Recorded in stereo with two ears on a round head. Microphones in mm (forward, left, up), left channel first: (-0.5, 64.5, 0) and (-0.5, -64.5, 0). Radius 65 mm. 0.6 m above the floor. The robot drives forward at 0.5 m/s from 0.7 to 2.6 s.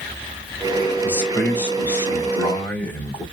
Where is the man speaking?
15° left (ahead or behind), 2.5 m; by 3.2 s 10° left (ahead or behind), 3.5 m.